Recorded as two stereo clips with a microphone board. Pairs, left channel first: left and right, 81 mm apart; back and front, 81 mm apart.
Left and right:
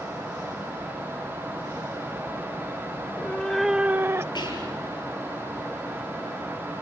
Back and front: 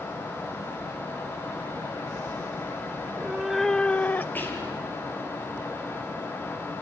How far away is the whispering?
About 7 m.